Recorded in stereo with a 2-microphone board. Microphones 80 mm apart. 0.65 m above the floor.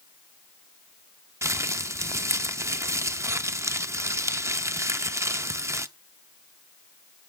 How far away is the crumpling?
About 0.6 m.